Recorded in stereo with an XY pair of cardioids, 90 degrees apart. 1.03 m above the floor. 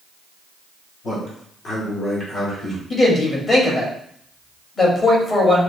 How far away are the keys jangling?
I don't hear keys jangling.